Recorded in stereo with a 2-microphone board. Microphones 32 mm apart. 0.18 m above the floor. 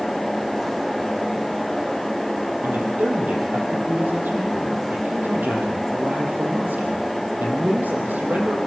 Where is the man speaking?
60° right (ahead or behind), 5.5 m.